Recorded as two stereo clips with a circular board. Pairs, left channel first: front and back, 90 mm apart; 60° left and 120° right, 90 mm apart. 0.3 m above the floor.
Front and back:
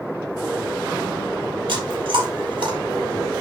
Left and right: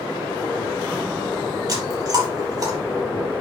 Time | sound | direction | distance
1.7 | chewing | 160° right | 5 m